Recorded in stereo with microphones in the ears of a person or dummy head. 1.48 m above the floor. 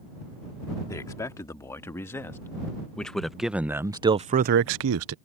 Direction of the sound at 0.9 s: 20° left (ahead or behind).